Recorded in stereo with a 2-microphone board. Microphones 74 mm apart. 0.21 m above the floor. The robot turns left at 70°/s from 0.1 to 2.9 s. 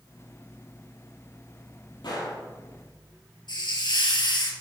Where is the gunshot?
80° left, 4.5 m; by 2.4 s 60° left (ahead or behind), 4.5 m.